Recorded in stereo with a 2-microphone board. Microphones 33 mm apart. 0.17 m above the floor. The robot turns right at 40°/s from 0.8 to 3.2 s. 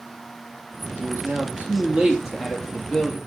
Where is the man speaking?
70° right, 4.5 m; by 3.2 s 25° left, 4.5 m.